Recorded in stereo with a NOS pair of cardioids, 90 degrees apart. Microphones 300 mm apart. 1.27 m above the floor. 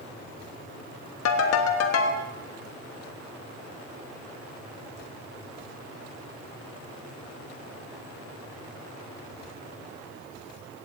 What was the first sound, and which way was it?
A ringtone, 65° left.